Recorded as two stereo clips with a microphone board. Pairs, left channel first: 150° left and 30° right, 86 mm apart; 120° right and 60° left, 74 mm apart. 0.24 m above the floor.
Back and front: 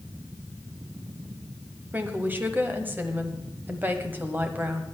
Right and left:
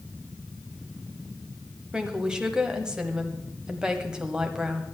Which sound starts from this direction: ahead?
A woman speaking, at 1.9 s.